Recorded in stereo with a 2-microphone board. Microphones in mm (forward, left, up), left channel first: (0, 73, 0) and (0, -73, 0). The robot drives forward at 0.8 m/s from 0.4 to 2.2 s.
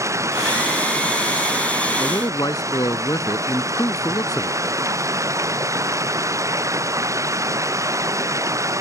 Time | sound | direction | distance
0.0 | running water | 20° right (ahead or behind) | ?
2.0 | a man speaking | 25° left (ahead or behind) | ?